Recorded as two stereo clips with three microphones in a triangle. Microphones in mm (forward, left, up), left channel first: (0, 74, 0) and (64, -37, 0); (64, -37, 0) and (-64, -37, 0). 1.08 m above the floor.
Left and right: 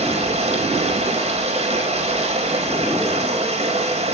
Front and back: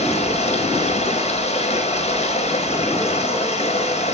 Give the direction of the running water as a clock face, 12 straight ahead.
1 o'clock.